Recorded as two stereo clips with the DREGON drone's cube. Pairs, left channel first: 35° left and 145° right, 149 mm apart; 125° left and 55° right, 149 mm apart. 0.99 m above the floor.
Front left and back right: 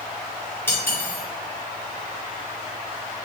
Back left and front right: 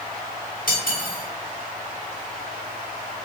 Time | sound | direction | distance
0.7 | cutlery clinking | 110° left | 1.6 m